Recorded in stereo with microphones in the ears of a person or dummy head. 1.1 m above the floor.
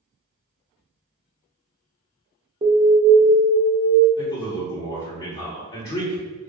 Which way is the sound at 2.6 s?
25° right (ahead or behind).